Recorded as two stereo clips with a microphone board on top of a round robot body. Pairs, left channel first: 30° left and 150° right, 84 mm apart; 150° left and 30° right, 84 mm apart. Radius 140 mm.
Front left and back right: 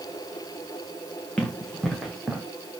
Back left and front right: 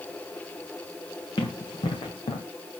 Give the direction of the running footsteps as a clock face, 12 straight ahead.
8 o'clock.